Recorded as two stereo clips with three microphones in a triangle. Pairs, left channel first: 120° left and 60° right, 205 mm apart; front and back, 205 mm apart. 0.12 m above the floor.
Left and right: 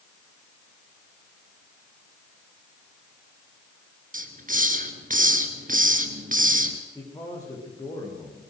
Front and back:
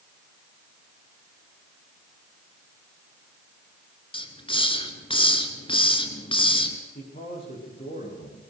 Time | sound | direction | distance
4.1 | a hiss | 50° right | 2 m
7.0 | a man speaking | 45° left | 9 m